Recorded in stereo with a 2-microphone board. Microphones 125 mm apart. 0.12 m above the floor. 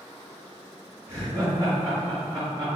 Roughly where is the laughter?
Right.